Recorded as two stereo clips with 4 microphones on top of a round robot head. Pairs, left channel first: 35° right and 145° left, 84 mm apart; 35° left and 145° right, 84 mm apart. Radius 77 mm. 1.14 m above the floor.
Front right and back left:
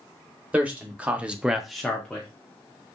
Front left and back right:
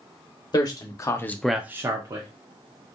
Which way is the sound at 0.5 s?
70° left.